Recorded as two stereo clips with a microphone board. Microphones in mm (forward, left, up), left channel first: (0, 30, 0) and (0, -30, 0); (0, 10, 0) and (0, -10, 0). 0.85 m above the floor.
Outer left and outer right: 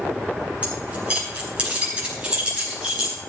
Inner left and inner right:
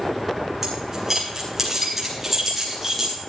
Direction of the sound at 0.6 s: 20° right (ahead or behind).